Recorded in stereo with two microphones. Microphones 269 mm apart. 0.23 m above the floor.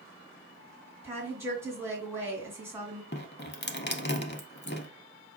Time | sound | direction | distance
1.0 | a woman speaking | 10° right (ahead or behind) | 2.0 m
3.1 | dripping | 40° left (ahead or behind) | 0.6 m